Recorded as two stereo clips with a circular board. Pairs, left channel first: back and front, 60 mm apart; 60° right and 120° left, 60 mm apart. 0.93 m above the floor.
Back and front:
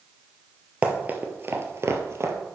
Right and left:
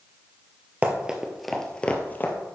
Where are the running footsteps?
65° left, 1.2 m; by 2.3 s 20° right, 1.4 m.